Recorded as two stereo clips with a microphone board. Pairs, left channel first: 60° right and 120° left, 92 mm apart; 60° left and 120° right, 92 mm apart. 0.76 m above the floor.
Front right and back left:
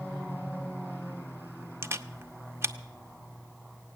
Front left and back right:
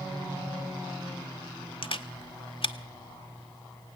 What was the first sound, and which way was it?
A camera shutter, 60° left.